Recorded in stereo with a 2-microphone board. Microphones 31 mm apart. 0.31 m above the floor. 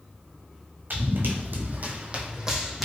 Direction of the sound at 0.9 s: 75° right (ahead or behind).